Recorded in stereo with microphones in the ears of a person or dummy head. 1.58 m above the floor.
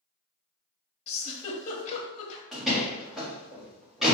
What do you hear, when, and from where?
1.1 s a giggle: 35° left (ahead or behind), 0.8 m
2.5 s a door slam: centre (ahead or behind), 1.8 m